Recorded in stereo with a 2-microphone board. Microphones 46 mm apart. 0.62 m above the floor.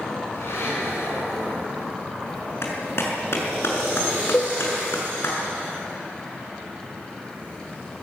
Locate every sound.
0.3 s a blender: 65° left (ahead or behind), 8 m
2.6 s a clap: 65° left (ahead or behind), 6 m
4.3 s a cowbell: 50° left (ahead or behind), 1.9 m